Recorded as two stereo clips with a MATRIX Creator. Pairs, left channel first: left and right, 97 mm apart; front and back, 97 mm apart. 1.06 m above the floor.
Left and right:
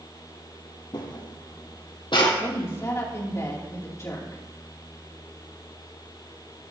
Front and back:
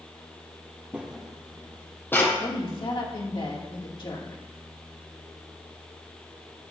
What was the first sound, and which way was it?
Footsteps, 110° left.